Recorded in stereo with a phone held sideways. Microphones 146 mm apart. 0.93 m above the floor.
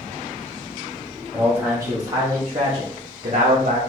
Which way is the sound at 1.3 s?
10° right (ahead or behind).